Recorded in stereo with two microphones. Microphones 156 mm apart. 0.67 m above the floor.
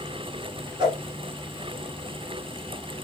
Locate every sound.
0.8 s a whoosh: 30° right (ahead or behind), 1.9 m